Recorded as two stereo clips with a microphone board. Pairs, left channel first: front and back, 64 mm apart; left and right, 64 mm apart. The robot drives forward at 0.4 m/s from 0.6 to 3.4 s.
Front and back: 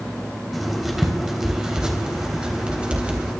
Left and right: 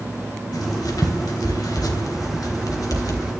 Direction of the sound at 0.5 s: 90° left.